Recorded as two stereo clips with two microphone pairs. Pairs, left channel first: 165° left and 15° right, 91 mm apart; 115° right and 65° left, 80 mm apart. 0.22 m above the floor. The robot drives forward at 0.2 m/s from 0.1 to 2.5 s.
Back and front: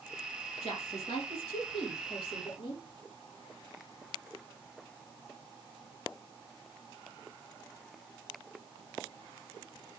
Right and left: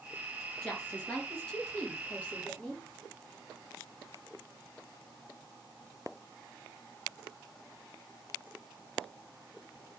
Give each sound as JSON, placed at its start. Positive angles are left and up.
{"t": 0.6, "sound": "a woman speaking", "azimuth_deg": 165, "distance_m": 4.5}